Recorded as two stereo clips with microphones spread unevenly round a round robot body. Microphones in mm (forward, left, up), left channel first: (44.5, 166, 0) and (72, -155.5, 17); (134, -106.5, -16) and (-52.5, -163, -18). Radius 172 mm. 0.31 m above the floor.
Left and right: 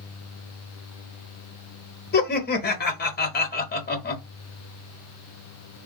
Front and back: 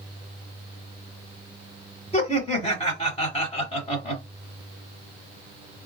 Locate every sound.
2.1 s laughter: 60° left, 1.1 m